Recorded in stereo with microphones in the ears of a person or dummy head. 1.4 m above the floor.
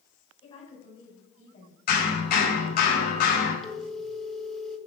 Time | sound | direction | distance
0.4 | a woman speaking | 25° left (ahead or behind) | 6.5 m
1.9 | hammering | 45° left (ahead or behind) | 5 m
3.6 | a phone ringing | centre (ahead or behind) | 1.8 m